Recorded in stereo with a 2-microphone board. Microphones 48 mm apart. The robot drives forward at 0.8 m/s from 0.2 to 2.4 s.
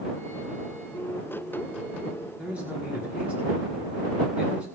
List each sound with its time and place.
2.4 s a man speaking: 30° right (ahead or behind), 5.5 m